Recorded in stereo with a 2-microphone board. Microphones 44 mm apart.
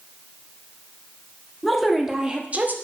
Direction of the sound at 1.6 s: 5° left (ahead or behind).